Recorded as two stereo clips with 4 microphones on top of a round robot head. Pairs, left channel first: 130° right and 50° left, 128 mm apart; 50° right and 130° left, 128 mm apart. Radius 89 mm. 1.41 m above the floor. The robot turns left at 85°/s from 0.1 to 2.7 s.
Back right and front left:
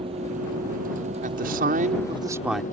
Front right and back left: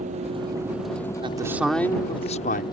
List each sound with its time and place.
0.0 s a vehicle: 100° left; by 2.7 s 110° right
1.2 s a man speaking: 80° left; by 2.6 s 40° right